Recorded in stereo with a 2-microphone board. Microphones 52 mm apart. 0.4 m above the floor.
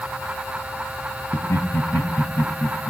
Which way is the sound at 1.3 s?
65° left (ahead or behind).